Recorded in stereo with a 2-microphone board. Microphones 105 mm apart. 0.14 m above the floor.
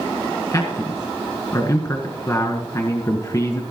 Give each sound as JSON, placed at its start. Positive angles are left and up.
{"t": 0.5, "sound": "a man speaking", "side_deg": 30, "distance_m": 1.5}